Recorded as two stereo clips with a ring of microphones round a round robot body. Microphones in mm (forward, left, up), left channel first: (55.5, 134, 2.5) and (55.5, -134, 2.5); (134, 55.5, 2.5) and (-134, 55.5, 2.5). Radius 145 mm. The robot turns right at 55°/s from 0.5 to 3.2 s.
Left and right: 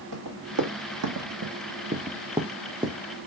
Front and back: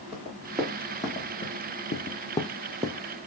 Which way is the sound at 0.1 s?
105° right.